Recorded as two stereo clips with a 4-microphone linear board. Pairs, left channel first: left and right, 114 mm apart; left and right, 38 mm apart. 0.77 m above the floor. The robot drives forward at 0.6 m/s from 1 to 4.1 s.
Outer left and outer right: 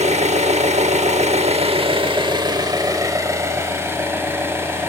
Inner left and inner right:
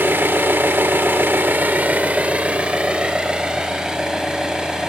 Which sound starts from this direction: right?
An engine running, at 0.0 s.